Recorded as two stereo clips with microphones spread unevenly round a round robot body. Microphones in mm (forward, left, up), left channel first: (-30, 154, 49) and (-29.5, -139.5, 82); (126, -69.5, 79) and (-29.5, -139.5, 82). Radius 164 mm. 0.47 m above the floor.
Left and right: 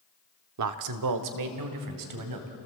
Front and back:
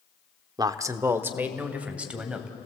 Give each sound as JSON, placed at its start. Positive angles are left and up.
{"t": 0.6, "sound": "a man speaking", "azimuth_deg": -90, "distance_m": 1.0}